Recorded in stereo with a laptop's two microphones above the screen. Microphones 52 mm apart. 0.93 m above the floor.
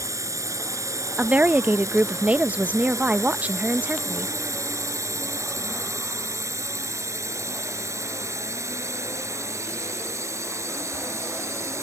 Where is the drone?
85° right; by 11.8 s 70° right (ahead or behind).